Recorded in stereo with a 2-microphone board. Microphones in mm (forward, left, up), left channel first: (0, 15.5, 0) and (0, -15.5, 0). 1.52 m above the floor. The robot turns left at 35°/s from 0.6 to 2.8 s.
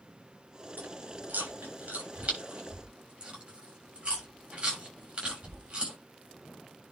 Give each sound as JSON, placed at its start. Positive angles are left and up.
{"t": 0.8, "sound": "chewing", "side_deg": -70, "distance_m": 7.0}